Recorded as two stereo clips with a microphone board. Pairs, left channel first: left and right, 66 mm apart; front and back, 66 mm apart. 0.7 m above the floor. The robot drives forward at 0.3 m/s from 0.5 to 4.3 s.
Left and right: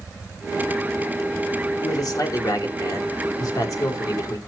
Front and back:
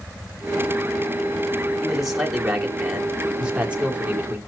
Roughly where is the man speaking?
Left.